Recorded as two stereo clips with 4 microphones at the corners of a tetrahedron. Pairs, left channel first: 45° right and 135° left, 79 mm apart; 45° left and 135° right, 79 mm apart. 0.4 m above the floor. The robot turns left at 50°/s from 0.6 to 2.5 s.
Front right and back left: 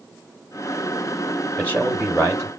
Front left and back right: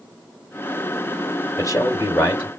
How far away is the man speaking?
About 1.9 m.